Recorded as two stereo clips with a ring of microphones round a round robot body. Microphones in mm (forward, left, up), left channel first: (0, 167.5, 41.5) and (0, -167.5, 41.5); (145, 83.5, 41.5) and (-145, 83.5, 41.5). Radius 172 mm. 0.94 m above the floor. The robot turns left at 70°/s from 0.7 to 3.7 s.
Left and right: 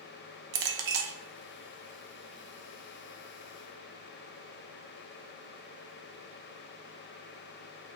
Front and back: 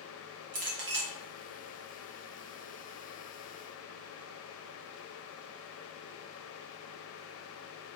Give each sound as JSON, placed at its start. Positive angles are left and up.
{"t": 0.5, "sound": "a clink", "azimuth_deg": -115, "distance_m": 0.6}